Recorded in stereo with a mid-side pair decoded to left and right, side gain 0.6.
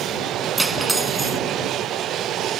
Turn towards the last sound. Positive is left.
turn(degrees=-10)